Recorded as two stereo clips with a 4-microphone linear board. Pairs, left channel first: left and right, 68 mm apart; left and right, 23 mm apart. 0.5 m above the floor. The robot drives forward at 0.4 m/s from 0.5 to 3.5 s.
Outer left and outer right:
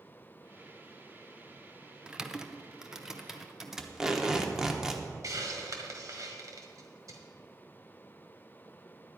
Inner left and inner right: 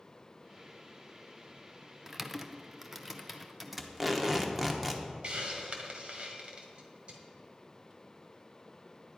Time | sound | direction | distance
2.1 | typing on a keyboard | 10° right (ahead or behind) | 0.5 m
3.8 | tape being pulled | 10° right (ahead or behind) | 1.0 m
5.2 | a hiss | 55° right (ahead or behind) | 1.5 m